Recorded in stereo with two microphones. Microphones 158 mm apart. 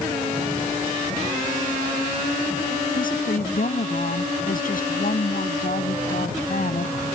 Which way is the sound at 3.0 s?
65° left (ahead or behind).